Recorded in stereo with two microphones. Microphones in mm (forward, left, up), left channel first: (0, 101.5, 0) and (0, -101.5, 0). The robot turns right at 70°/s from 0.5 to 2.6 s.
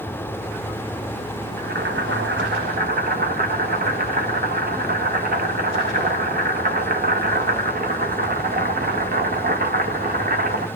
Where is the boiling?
125° right, 0.7 m; by 10.7 s 55° right, 0.7 m.